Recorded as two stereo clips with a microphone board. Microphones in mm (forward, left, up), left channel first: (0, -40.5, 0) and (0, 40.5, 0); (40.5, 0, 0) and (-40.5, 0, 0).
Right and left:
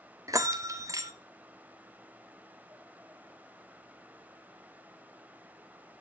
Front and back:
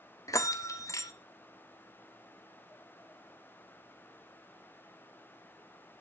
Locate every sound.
0.3 s a bell: 45° left, 1.0 m